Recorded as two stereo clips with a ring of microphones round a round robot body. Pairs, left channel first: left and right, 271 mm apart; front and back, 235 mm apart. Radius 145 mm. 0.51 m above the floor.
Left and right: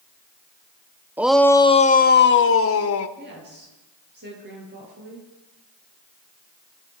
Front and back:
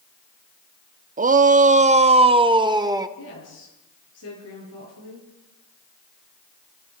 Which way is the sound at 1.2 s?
170° right.